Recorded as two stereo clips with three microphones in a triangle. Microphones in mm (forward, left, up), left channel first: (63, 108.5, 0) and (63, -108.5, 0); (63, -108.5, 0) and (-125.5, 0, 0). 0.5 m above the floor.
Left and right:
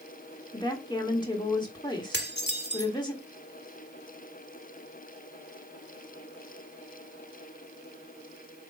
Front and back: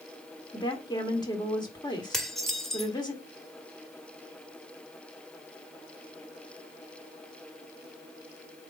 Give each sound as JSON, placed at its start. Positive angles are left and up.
{"t": 0.5, "sound": "a woman speaking", "azimuth_deg": 30, "distance_m": 1.5}
{"t": 2.1, "sound": "dishes clattering", "azimuth_deg": 60, "distance_m": 1.0}